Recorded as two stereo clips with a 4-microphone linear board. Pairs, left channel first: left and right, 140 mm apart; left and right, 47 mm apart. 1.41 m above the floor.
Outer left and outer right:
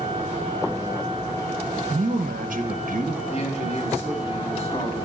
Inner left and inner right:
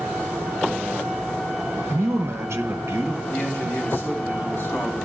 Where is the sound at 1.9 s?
70° right (ahead or behind), 1.1 m.